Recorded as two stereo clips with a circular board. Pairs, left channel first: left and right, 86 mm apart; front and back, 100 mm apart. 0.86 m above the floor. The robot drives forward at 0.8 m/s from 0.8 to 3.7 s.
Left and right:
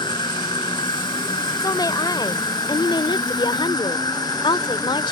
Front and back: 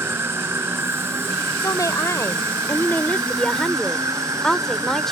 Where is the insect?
115° left; by 5.1 s 125° left.